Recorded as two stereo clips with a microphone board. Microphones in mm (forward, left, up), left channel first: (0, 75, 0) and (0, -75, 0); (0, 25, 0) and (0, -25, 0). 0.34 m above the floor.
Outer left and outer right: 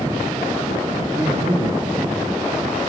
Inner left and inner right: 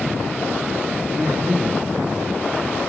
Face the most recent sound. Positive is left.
turn(degrees=0)  # may be behind; listen again after turning